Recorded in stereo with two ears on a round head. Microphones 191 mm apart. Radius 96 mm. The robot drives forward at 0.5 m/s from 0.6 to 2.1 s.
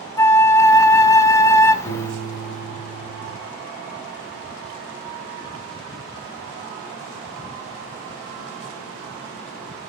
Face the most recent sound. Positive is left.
turn(degrees=70)  # may be behind; listen again after turning